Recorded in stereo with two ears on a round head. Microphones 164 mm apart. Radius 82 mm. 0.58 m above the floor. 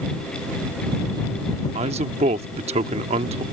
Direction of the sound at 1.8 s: 35° right (ahead or behind).